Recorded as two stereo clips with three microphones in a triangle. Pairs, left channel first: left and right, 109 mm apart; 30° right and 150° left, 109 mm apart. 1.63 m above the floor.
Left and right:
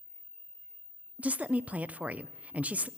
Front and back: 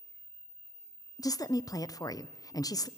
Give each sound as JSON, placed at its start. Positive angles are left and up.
{"t": 1.2, "sound": "a woman speaking", "azimuth_deg": -20, "distance_m": 0.5}